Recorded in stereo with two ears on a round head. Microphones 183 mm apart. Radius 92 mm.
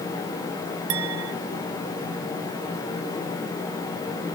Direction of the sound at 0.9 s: 85° right.